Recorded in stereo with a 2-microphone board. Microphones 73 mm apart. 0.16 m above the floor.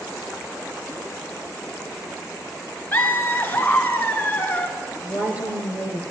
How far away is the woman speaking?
About 2.5 m.